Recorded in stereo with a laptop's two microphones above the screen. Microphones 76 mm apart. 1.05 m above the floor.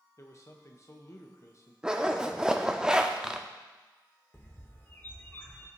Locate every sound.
0.2 s a man speaking: 40° left (ahead or behind), 0.8 m
1.8 s a zipper: 10° right (ahead or behind), 0.6 m
4.3 s a bird: 25° left (ahead or behind), 1.0 m